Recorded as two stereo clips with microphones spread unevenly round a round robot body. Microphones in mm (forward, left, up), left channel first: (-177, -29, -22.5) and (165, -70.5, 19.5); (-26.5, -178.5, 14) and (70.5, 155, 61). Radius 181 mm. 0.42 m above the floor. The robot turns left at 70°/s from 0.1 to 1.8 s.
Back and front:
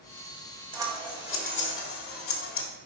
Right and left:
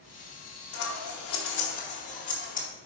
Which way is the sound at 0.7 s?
85° right.